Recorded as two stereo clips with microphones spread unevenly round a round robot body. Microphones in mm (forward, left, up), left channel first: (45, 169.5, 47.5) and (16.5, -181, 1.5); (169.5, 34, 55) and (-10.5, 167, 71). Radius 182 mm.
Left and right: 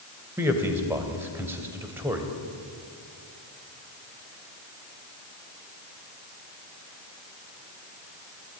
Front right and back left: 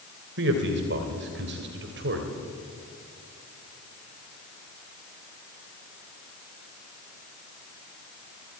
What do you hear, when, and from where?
0.4 s a man speaking: 175° right, 2.5 m